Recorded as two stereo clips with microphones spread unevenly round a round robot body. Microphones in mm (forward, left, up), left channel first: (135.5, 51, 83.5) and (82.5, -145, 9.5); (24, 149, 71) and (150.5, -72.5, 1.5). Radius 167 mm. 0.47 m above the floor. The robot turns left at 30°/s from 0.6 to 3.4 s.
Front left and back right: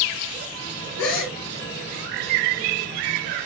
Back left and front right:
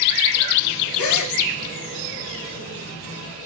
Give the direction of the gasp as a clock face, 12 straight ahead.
9 o'clock.